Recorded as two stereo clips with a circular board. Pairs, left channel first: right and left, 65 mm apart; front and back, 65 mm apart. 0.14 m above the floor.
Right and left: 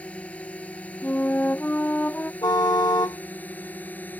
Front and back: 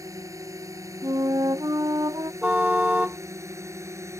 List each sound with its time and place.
0.0 s a drone: 160° right; by 4.2 s 150° right
1.0 s a flute: 155° right
2.4 s a car horn: 110° right